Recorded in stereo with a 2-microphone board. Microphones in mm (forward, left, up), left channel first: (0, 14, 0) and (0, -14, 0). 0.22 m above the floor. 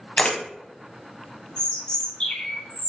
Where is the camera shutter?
40° left (ahead or behind), 0.7 m.